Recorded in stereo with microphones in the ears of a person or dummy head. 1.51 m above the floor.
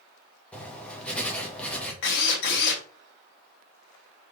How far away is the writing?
About 1.8 m.